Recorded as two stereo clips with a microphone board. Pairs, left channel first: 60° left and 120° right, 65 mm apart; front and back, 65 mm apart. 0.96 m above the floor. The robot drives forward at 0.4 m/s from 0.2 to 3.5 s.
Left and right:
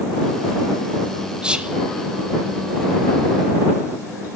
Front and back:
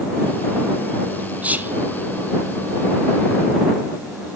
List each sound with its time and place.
1.4 s whispering: 165° right, 0.6 m; by 1.8 s 170° right, 0.7 m